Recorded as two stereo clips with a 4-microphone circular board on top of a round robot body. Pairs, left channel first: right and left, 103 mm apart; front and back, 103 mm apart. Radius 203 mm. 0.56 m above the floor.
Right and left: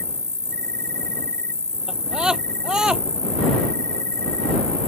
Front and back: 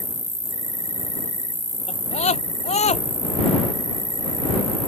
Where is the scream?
5° left.